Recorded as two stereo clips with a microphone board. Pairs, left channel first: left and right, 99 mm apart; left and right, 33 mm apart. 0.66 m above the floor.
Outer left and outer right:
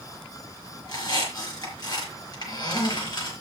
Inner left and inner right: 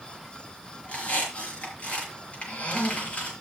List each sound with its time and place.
0.8 s a squeak: 40° left (ahead or behind), 5.5 m